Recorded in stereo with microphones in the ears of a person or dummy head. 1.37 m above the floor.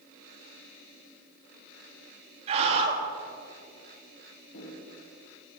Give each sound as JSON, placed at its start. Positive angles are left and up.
{"t": 2.5, "sound": "a scream", "side_deg": -40, "distance_m": 3.0}
{"t": 4.5, "sound": "footsteps", "side_deg": 75, "distance_m": 5.5}